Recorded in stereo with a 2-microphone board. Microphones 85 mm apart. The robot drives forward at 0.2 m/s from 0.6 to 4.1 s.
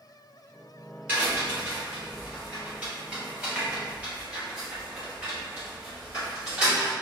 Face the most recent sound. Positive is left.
turn(degrees=-20)  # may be behind; listen again after turning